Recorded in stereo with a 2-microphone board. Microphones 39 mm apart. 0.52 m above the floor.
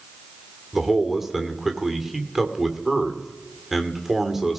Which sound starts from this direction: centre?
A man speaking, at 0.7 s.